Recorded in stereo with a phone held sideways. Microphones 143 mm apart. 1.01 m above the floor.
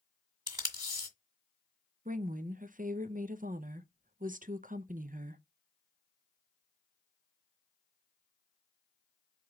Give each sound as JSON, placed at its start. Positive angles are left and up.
{"t": 0.5, "sound": "tape being pulled", "side_deg": -30, "distance_m": 1.7}
{"t": 2.0, "sound": "a woman speaking", "side_deg": -65, "distance_m": 0.5}